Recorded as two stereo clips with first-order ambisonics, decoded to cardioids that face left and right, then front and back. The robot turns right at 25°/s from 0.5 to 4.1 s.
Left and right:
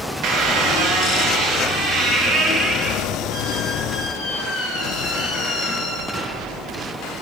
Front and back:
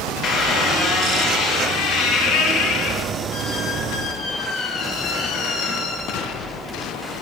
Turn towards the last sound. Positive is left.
turn(degrees=25)